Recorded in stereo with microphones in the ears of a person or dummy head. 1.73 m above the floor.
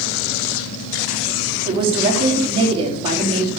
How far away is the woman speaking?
About 4.5 m.